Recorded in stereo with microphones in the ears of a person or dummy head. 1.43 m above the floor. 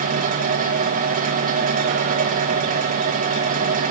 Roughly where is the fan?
Right.